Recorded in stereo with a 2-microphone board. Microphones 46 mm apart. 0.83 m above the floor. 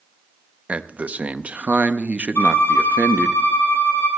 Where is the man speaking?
30° right (ahead or behind), 0.7 m.